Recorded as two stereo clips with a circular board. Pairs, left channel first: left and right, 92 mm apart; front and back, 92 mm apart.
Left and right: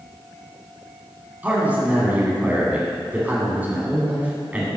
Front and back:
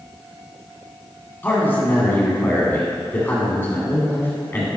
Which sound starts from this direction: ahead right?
A man speaking, at 1.4 s.